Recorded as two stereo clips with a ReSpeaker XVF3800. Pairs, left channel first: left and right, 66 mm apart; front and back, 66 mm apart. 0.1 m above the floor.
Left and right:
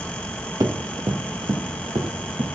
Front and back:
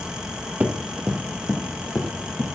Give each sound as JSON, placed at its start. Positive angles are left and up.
{"t": 0.6, "sound": "running footsteps", "azimuth_deg": -120, "distance_m": 1.9}